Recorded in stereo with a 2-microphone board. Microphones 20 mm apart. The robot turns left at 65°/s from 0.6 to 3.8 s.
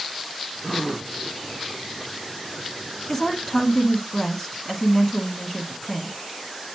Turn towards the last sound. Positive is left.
turn(degrees=20)  # may be behind; listen again after turning